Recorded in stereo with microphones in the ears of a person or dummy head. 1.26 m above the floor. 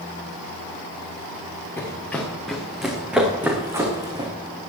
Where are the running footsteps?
10° left (ahead or behind), 4.5 m; by 4.3 s 25° right (ahead or behind), 4 m.